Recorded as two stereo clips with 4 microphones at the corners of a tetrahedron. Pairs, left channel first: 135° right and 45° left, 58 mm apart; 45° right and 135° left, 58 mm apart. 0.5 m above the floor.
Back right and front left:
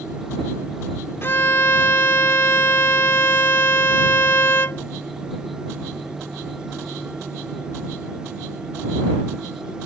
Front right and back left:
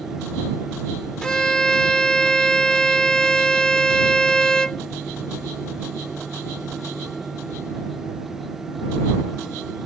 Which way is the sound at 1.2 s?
115° right.